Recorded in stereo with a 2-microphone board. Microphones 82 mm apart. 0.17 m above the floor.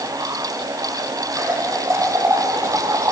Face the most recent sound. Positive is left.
turn(degrees=-40)  # may be behind; listen again after turning